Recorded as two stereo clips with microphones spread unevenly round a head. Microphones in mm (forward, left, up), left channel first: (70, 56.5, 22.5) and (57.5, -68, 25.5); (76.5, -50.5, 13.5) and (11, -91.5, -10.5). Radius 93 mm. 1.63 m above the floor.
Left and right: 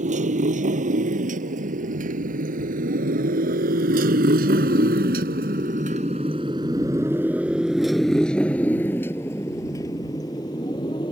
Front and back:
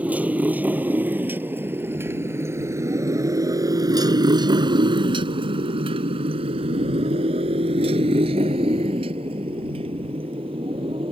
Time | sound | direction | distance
0.0 | a motorcycle | 75° right | ?